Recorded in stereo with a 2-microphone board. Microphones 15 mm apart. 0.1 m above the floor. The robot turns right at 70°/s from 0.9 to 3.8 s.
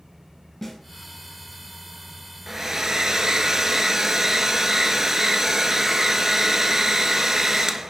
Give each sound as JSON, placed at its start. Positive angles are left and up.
{"t": 0.6, "sound": "a snare drum", "side_deg": 15, "distance_m": 1.6}
{"t": 2.5, "sound": "a hair dryer", "azimuth_deg": -145, "distance_m": 0.5}